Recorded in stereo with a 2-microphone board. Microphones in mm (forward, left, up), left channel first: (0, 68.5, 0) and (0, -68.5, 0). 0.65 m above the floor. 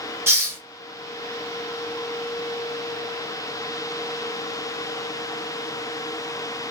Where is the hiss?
20° right (ahead or behind), 0.7 m.